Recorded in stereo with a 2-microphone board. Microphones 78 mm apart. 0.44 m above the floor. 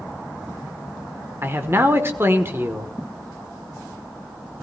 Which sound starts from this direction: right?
A man speaking, at 1.4 s.